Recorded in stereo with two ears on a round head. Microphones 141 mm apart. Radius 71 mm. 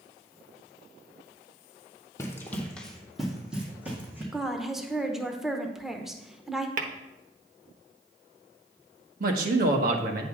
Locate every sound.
2.2 s running footsteps: 20° left (ahead or behind), 1.6 m; by 4.2 s 15° right (ahead or behind), 3 m
4.3 s a woman speaking: 5° right (ahead or behind), 0.9 m
6.8 s tapping: 55° right (ahead or behind), 1.0 m
9.2 s a man speaking: 65° right (ahead or behind), 1.3 m